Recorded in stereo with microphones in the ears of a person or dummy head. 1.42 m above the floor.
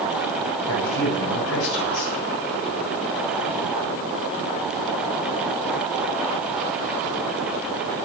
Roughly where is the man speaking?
Left.